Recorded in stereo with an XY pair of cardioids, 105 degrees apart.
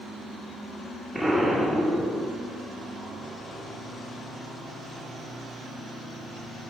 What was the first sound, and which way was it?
An explosion, 10° right.